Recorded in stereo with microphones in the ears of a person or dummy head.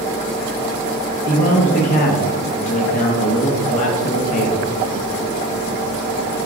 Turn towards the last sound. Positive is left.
turn(degrees=40)  # may be behind; listen again after turning